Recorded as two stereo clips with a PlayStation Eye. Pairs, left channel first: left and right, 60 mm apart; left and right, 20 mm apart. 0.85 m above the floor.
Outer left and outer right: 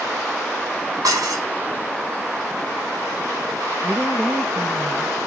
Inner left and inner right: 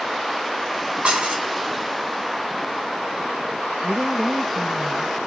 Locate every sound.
1.0 s dishes clattering: 90° right, 5 m
3.8 s a woman speaking: 5° right (ahead or behind), 0.9 m